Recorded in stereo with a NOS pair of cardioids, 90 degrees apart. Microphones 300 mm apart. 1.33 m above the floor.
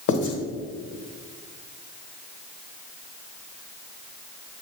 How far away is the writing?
About 1.4 m.